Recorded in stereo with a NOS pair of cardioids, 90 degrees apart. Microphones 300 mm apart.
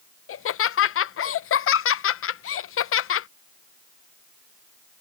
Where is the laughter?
50° left.